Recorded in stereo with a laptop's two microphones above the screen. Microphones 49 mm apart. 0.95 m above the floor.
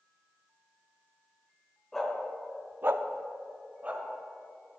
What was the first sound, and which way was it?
A dog barking, 5° left (ahead or behind).